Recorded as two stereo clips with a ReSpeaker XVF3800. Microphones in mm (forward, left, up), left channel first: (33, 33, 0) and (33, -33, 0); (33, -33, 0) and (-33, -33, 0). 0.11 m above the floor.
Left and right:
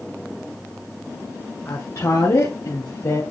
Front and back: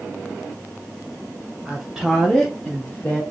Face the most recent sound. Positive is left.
turn(degrees=60)